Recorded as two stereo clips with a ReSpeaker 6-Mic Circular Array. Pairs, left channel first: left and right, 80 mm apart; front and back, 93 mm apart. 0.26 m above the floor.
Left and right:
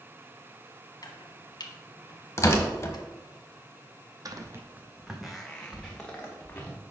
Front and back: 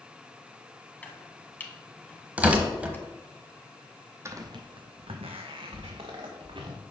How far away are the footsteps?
About 0.7 m.